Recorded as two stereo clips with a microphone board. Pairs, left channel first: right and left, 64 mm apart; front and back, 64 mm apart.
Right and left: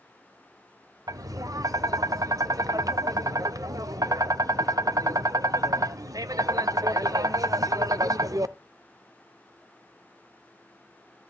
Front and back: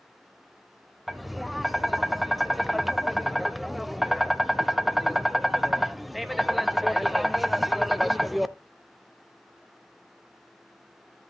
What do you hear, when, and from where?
1.1 s tapping: 90° left, 0.6 m